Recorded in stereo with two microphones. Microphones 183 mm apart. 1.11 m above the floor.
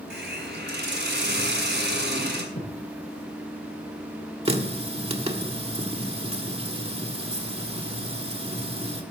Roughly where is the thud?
Left.